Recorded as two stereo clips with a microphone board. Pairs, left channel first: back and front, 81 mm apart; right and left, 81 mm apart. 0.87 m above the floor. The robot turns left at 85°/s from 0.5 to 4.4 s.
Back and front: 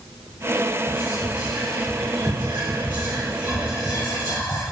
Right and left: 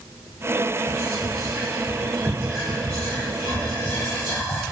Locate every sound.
0.9 s whispering: 155° left, 1.1 m; by 4.6 s 145° right, 1.1 m